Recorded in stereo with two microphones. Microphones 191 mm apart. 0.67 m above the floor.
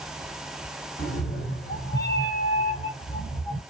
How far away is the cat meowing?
About 0.9 m.